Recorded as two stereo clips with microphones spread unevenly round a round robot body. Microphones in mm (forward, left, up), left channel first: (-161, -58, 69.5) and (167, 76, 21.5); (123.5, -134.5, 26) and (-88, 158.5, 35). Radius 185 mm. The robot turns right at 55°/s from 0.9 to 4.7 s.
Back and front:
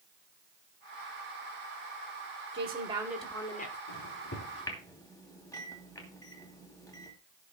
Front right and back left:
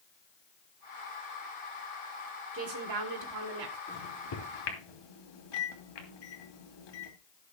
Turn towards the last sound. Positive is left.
turn(degrees=-75)